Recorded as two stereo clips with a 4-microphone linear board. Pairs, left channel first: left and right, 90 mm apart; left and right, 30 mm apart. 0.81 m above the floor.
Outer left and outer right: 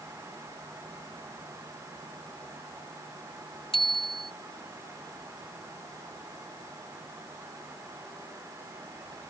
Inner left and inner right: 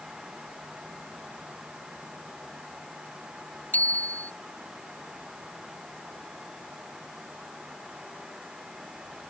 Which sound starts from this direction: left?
A bicycle bell, at 3.7 s.